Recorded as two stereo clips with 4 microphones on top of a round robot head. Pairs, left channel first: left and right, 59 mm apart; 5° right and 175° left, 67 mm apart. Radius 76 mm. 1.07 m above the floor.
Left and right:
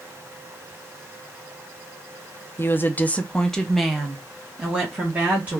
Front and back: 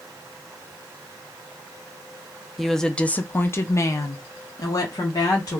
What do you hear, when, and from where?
2.6 s a woman speaking: 85° left, 0.7 m; by 5.6 s 25° right, 1.5 m